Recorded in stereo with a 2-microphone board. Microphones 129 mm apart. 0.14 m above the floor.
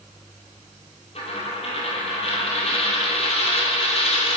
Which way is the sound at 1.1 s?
50° left (ahead or behind).